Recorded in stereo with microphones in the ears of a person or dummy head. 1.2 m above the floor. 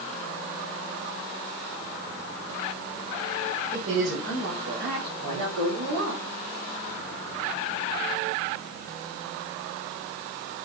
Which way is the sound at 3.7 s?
75° right (ahead or behind).